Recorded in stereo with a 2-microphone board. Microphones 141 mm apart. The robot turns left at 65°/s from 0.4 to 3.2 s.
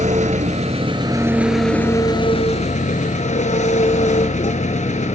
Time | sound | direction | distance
0.0 | an engine running | 105° right | 1.1 m